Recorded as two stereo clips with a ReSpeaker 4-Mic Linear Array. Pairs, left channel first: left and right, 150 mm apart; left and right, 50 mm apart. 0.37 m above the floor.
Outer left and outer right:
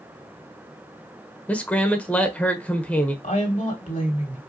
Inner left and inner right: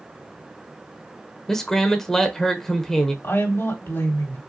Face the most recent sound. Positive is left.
turn(degrees=60)  # may be behind; listen again after turning